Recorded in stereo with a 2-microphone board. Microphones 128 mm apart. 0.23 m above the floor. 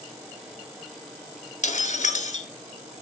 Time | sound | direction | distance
1.6 | breaking glass | 75° left (ahead or behind) | 1.0 m